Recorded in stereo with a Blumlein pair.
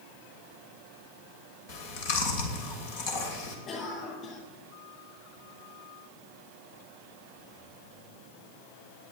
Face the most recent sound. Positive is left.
turn(degrees=25)